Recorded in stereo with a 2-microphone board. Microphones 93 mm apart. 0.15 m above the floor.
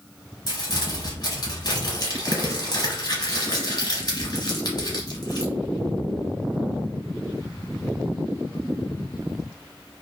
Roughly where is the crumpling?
Left.